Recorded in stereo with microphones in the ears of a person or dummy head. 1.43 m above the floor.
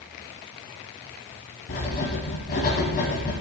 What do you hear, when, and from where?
1.7 s writing: 40° left (ahead or behind), 1.6 m